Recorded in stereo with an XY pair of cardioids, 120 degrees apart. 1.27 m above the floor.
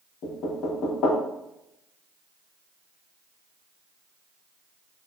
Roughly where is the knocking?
Ahead left.